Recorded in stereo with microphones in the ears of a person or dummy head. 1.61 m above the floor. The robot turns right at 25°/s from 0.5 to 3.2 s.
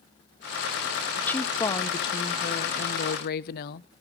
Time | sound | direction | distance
1.2 | a woman speaking | 5° left | 0.6 m